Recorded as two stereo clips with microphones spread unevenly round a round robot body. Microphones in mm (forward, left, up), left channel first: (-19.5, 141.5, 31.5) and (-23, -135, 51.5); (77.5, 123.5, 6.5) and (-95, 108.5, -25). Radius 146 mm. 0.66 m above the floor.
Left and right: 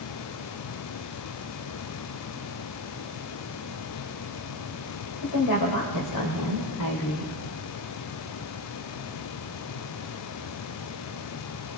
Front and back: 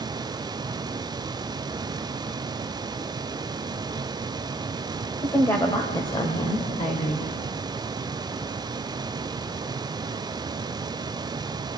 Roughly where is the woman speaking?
Left.